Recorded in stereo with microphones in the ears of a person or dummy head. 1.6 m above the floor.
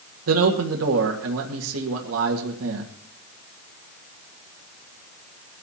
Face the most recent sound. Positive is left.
turn(degrees=-80)